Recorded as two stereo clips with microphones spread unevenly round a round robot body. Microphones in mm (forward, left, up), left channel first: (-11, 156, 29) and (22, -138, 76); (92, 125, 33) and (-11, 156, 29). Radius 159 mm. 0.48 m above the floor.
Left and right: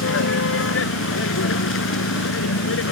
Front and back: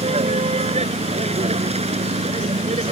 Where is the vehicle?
145° left.